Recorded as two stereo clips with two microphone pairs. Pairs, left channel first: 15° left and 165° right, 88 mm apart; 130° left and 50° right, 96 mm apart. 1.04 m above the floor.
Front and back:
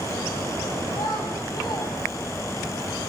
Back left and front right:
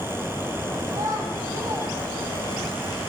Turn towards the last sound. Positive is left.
turn(degrees=-15)